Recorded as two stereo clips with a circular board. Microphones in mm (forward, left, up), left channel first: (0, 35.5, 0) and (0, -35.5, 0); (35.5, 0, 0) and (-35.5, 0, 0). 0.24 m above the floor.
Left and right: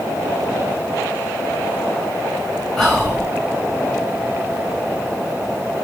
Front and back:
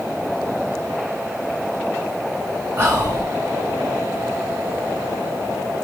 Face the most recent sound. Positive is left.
turn(degrees=175)